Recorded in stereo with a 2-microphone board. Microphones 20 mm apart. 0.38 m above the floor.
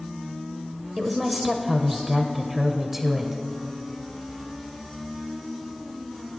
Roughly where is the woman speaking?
Centre.